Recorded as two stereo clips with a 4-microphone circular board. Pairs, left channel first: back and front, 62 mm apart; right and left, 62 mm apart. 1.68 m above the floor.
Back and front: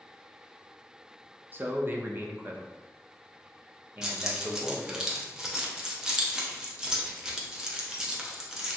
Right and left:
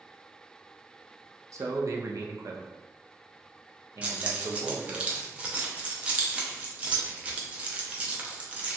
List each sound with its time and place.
1.5 s a man speaking: 55° left, 0.5 m
4.0 s keys jangling: 65° left, 0.5 m